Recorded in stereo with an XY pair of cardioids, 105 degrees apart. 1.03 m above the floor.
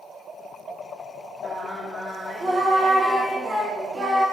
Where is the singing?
20° right, 1.6 m.